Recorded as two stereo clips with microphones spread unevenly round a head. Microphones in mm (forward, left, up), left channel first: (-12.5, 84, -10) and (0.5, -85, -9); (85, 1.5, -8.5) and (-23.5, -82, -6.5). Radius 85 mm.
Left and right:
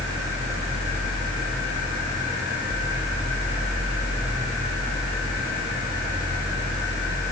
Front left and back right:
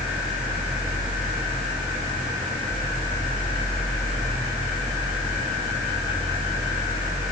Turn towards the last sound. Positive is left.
No sound to turn to.